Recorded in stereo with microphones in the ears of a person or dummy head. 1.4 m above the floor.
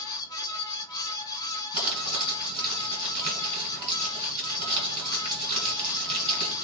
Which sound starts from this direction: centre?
A fan, at 0.0 s.